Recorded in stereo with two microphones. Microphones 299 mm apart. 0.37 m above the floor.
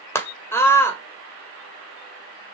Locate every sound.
0.1 s a scream: 10° left (ahead or behind), 1.7 m